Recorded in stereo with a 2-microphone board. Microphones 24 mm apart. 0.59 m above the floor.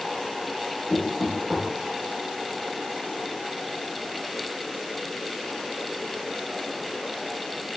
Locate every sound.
0.9 s knocking: 10° right (ahead or behind), 1.2 m